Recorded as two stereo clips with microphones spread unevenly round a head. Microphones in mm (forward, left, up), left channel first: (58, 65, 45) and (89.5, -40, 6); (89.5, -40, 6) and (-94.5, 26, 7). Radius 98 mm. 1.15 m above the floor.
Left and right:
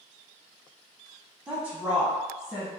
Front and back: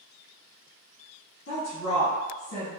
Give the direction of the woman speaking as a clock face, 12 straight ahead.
12 o'clock.